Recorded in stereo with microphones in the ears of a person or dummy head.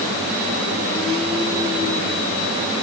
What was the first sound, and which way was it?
Only background noise.